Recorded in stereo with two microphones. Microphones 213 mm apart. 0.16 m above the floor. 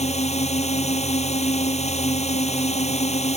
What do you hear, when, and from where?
0.0 s a drone: 30° left (ahead or behind)